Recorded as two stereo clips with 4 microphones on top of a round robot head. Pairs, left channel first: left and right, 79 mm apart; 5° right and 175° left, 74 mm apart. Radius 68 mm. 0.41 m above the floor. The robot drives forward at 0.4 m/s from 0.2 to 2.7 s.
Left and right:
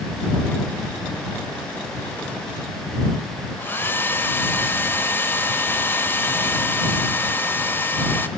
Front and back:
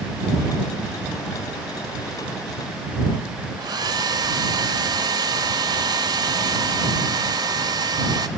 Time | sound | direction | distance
3.6 | a hair dryer | 150° left | 1.1 m